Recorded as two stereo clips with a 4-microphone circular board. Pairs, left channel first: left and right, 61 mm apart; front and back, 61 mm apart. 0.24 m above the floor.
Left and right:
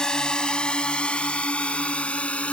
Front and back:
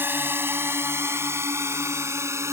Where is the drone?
160° left; by 2.5 s 155° left.